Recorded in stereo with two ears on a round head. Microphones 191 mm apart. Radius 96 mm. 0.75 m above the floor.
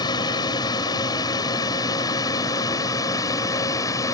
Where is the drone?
20° left (ahead or behind); by 4.1 s 15° left (ahead or behind).